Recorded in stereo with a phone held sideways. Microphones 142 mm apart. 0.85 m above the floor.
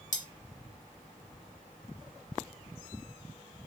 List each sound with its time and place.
0.1 s cutlery clinking: 60° left (ahead or behind), 1.1 m